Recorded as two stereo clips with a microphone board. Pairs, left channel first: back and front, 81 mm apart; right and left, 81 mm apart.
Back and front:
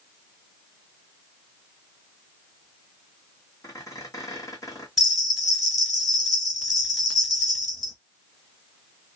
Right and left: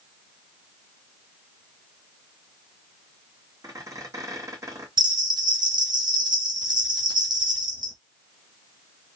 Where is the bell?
90° left, 1.6 m.